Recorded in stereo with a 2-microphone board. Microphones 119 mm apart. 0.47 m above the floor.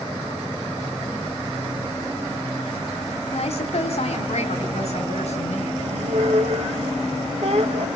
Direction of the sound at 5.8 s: 70° right (ahead or behind).